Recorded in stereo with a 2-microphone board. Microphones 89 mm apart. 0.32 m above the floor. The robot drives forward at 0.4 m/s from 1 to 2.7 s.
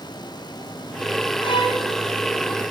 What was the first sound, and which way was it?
A violin, 60° left (ahead or behind).